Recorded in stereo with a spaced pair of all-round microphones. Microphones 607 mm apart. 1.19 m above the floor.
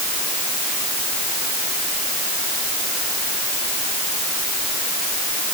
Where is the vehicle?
I don't hear a vehicle.